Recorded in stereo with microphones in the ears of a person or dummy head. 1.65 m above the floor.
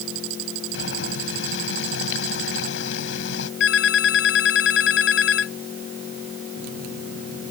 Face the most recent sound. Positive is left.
turn(degrees=70)  # may be behind; listen again after turning